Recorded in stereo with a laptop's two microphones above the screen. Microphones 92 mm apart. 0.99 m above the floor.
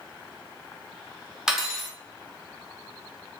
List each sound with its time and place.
1.5 s cutlery clinking: 5° right (ahead or behind), 0.7 m